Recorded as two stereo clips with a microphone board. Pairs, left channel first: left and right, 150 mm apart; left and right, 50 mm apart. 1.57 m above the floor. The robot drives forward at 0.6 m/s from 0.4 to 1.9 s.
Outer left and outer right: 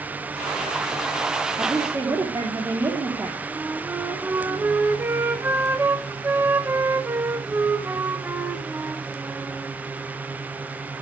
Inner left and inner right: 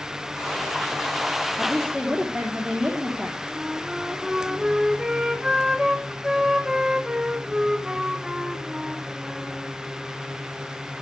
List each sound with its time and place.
1.6 s a woman speaking: 20° right (ahead or behind), 3.5 m
3.5 s a flute: 15° right (ahead or behind), 1.6 m